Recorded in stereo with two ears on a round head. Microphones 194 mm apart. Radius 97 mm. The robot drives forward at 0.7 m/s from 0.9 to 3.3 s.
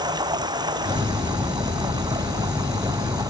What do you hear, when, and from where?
0.0 s running water: 20° right (ahead or behind)